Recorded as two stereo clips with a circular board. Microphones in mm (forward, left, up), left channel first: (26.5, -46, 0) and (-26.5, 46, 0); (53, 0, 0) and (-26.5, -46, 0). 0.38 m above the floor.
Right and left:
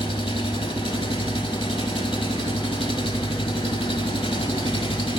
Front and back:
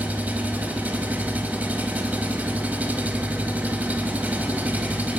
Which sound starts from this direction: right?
An engine running, at 0.0 s.